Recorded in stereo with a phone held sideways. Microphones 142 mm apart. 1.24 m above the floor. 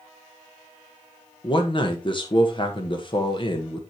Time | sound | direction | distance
1.4 | a man speaking | 35° left (ahead or behind) | 1.5 m